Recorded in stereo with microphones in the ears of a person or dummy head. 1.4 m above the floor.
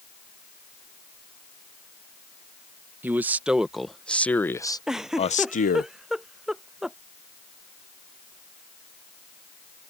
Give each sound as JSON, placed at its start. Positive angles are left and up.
{"t": 3.0, "sound": "a man speaking", "side_deg": -10}
{"t": 4.9, "sound": "a giggle", "side_deg": 0}